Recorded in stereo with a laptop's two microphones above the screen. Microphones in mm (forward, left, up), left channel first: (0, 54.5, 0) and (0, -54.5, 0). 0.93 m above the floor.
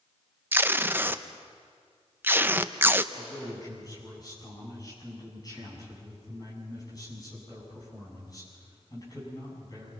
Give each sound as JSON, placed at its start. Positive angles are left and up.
{"t": 0.5, "sound": "tape being pulled", "side_deg": -20, "distance_m": 0.5}
{"t": 3.1, "sound": "a man speaking", "side_deg": 35, "distance_m": 8.0}